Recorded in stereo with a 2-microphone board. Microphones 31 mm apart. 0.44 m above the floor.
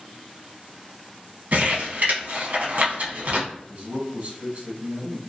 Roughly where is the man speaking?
Right.